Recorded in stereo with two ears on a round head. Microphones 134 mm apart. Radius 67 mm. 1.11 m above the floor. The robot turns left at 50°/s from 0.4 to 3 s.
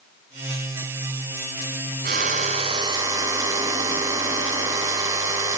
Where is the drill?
110° right, 6.5 m; by 5.6 s 160° right, 6.5 m.